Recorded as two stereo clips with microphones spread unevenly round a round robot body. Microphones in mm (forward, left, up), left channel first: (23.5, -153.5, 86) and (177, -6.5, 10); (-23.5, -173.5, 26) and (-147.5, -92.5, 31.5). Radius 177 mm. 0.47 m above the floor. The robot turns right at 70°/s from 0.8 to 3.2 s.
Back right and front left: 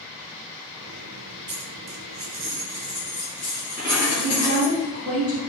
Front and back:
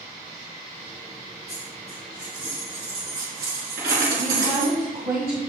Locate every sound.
1.5 s a dropped coin: 10° left, 3 m; by 4.8 s 130° left, 3 m
4.2 s a woman speaking: 125° left, 3 m